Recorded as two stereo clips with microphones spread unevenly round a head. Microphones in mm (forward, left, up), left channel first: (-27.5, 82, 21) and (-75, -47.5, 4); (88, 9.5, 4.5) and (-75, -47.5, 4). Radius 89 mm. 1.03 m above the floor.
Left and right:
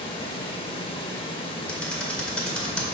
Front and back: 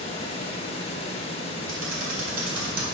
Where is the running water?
60° left, 0.8 m.